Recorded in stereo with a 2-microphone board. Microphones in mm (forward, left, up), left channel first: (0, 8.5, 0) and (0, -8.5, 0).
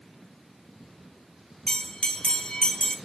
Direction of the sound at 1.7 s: 75° left (ahead or behind).